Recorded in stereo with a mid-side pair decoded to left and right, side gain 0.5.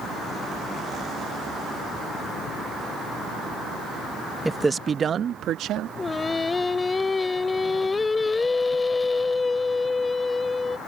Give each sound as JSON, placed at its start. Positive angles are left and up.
{"t": 4.5, "sound": "a man speaking", "azimuth_deg": -10}
{"t": 6.0, "sound": "singing", "azimuth_deg": 20}